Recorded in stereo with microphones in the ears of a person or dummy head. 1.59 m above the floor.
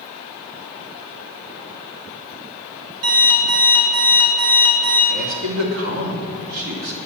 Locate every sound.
3.0 s an alarm clock: 70° right (ahead or behind), 3 m
5.1 s a man speaking: 75° right (ahead or behind), 3 m